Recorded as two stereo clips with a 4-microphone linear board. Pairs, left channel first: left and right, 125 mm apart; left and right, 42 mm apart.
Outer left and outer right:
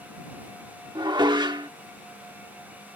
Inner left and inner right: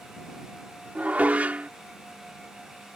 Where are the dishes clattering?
35° right (ahead or behind).